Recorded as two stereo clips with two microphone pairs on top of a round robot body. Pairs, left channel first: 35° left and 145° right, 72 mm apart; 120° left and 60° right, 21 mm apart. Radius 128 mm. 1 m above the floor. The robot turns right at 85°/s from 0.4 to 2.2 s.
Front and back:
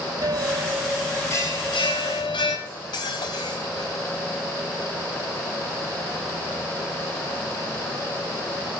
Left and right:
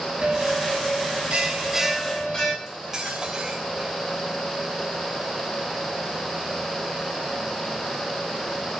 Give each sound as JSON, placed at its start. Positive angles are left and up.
{"t": 0.2, "sound": "a bell", "azimuth_deg": -105, "distance_m": 6.0}
{"t": 2.7, "sound": "cutlery clinking", "azimuth_deg": 5, "distance_m": 4.0}